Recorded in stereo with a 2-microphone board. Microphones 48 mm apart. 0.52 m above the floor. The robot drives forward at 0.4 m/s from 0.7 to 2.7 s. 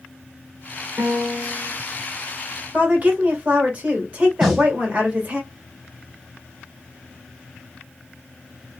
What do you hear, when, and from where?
1.0 s a piano: 30° right (ahead or behind), 1.4 m; by 1.7 s 35° right (ahead or behind), 1.2 m
2.7 s a woman speaking: 30° right (ahead or behind), 1.5 m
4.4 s a snare drum: 5° right (ahead or behind), 2 m